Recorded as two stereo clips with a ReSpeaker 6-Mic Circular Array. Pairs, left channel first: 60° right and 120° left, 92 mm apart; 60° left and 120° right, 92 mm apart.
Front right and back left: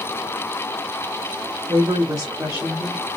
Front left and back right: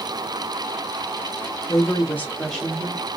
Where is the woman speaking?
100° left, 1.4 m; by 3.1 s 175° right, 1.1 m.